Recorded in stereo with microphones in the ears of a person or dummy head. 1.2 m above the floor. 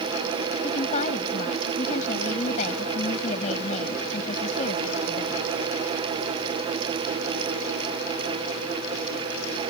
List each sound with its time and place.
0.6 s a woman speaking: 35° left (ahead or behind)